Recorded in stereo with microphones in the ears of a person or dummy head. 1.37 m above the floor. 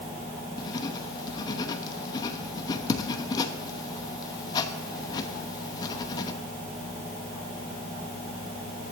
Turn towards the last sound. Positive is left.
turn(degrees=25)  # may be behind; listen again after turning